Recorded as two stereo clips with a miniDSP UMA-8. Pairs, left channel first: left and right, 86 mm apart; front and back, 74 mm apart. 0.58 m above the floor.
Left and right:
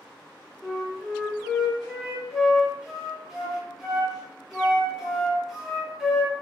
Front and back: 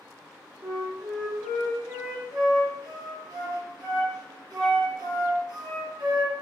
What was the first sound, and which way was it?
A flute, 175° right.